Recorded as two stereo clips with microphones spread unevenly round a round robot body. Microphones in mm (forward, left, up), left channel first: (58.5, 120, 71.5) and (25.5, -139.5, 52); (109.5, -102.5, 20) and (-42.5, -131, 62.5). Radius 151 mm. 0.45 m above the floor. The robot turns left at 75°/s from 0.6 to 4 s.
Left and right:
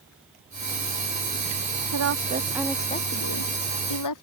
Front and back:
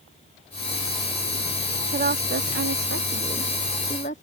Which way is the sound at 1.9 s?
130° right.